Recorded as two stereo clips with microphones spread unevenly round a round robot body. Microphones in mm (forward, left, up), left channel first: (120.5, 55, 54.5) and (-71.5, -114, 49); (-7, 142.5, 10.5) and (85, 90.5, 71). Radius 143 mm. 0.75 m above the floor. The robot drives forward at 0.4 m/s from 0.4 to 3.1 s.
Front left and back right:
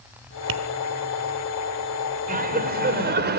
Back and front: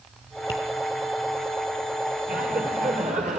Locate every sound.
0.5 s tapping: 140° right, 1.3 m; by 0.6 s 145° right, 1.3 m
2.3 s laughter: 80° right, 3 m; by 3.4 s 90° right, 3 m